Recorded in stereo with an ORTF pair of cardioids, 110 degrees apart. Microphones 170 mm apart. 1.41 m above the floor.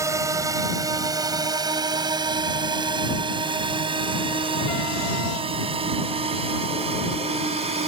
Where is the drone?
15° right; by 7.9 s 35° right.